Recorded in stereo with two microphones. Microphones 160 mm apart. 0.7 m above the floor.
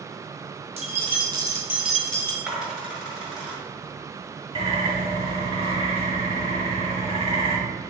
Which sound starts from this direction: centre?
A dropped coin, at 2.5 s.